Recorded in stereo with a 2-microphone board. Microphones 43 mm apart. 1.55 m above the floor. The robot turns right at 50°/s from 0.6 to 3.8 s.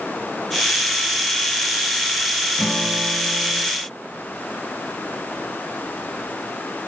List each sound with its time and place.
2.6 s a guitar: 155° left, 6.5 m; by 3.6 s 155° right, 6.5 m